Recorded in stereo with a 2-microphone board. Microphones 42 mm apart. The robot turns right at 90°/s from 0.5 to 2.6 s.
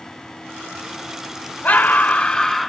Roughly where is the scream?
Left.